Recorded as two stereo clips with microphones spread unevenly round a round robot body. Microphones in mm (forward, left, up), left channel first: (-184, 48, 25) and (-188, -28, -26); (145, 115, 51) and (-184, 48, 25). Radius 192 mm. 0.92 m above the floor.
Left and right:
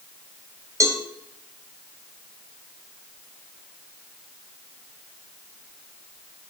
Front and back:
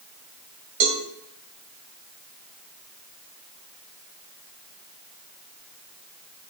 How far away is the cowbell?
About 2 m.